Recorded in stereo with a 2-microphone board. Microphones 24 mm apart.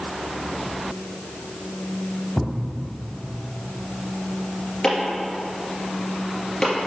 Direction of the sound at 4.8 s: 35° left (ahead or behind).